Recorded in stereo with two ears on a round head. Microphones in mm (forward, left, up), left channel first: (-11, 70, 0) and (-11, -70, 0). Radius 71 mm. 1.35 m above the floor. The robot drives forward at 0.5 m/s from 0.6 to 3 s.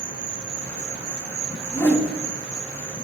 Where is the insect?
40° right (ahead or behind), 1.4 m; by 3.0 s 30° right (ahead or behind), 1.8 m.